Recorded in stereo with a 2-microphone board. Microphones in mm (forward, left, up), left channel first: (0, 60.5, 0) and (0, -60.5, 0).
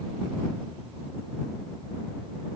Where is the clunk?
No clunk in this recording.